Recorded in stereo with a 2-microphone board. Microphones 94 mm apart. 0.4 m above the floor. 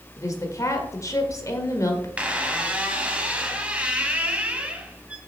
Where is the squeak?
15° right (ahead or behind), 1.0 m.